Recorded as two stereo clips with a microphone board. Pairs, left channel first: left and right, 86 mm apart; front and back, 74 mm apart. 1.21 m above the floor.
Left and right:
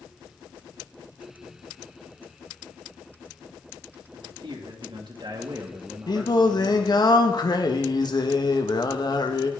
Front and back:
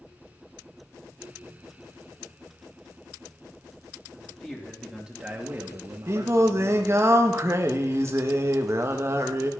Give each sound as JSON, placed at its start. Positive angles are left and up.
{"t": 4.1, "sound": "a man speaking", "azimuth_deg": -70, "distance_m": 2.5}
{"t": 6.1, "sound": "singing", "azimuth_deg": 125, "distance_m": 1.2}